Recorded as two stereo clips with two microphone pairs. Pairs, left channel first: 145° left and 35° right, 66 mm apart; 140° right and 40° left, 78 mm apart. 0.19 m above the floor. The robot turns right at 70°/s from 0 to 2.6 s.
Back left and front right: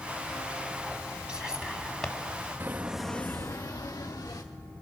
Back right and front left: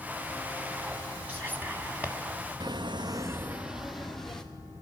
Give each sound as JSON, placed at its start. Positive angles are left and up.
{"t": 1.3, "sound": "whispering", "azimuth_deg": 20, "distance_m": 1.3}
{"t": 2.6, "sound": "footsteps", "azimuth_deg": 20, "distance_m": 0.8}